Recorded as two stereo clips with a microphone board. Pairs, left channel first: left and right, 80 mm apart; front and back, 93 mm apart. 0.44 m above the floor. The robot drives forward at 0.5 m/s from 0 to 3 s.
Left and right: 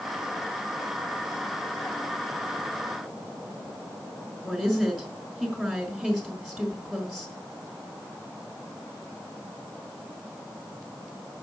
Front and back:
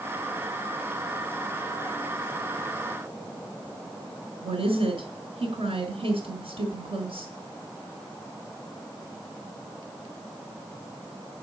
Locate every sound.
4.4 s a woman speaking: straight behind, 4.5 m